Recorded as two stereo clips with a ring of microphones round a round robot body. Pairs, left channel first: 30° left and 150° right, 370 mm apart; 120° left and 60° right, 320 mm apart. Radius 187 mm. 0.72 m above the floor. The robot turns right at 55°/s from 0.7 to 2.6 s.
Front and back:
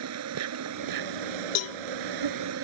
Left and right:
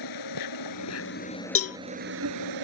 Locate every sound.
0.0 s an insect: 160° left; by 2.6 s 95° right
1.6 s a cowbell: 75° left; by 1.8 s 90° left